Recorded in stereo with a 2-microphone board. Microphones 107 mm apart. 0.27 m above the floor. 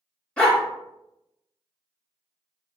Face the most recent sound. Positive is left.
turn(degrees=10)  # may be behind; listen again after turning